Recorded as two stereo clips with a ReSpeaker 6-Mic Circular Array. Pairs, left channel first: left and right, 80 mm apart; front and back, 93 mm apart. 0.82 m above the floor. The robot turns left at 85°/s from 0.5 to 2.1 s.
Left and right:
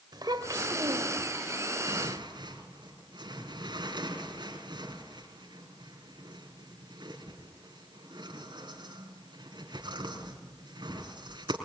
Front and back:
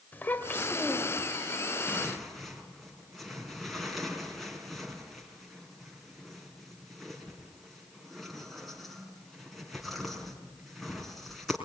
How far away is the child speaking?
About 2.5 m.